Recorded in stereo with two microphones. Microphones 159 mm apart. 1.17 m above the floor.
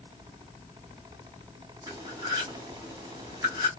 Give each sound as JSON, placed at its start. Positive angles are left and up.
{"t": 1.9, "sound": "cutlery clinking", "side_deg": -20, "distance_m": 2.5}